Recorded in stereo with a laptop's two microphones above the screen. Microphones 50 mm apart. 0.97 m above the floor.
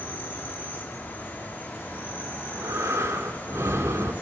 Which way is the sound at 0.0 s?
35° left (ahead or behind).